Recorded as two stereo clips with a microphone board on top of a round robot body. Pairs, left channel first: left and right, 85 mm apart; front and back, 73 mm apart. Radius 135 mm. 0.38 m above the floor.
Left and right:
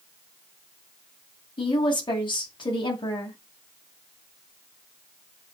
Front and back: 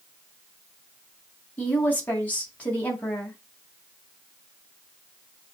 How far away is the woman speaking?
About 3.5 m.